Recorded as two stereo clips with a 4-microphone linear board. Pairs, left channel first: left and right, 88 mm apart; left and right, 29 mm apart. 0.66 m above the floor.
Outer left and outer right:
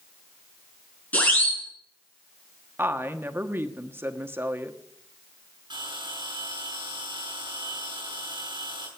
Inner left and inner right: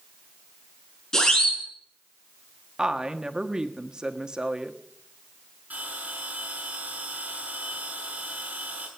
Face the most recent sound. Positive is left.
turn(degrees=-60)  # may be behind; listen again after turning